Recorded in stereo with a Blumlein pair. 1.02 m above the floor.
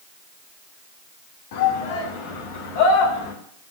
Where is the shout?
50° left, 2.5 m.